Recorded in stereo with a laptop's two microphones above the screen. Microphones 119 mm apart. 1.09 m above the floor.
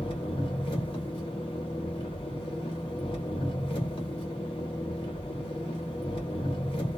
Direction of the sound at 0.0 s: 45° left (ahead or behind).